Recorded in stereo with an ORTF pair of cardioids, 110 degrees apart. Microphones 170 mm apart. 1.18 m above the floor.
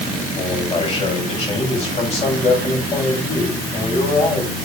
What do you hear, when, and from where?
0.3 s a man speaking: 40° left, 7 m